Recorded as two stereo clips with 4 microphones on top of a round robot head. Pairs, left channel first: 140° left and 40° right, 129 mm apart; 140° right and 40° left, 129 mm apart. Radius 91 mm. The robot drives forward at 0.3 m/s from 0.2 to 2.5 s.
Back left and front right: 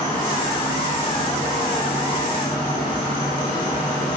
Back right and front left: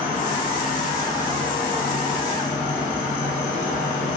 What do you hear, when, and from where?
0.0 s an insect: 155° right, 3 m; by 4.2 s 160° right, 3.5 m